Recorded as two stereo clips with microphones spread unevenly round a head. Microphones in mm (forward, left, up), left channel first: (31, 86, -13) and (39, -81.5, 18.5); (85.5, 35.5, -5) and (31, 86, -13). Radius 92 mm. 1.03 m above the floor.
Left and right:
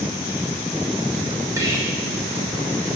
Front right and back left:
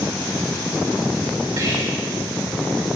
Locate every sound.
1.6 s whispering: 170° right, 1.6 m